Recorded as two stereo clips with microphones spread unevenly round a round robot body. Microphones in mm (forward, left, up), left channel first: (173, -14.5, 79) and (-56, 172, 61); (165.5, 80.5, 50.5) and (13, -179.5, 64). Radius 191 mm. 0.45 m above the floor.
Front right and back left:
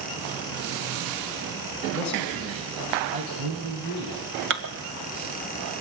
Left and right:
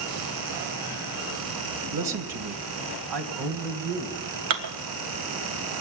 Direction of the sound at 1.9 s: 120° right.